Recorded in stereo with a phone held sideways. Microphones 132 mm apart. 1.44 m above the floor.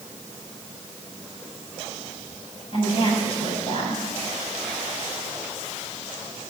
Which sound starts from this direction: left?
A woman speaking, at 2.7 s.